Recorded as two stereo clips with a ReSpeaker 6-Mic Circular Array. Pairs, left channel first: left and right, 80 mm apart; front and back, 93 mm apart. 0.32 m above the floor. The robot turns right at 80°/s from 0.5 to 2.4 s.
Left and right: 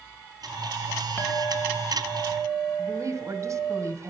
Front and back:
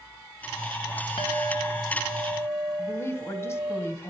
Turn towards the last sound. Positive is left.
turn(degrees=-55)